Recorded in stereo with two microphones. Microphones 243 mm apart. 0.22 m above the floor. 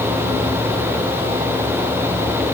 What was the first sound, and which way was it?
Only background noise.